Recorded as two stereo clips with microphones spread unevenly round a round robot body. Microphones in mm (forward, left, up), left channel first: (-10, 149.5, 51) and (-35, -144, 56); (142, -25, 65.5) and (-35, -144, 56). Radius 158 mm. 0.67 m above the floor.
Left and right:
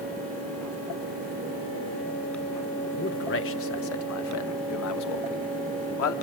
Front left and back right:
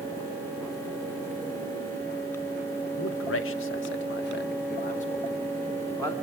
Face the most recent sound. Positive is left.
turn(degrees=115)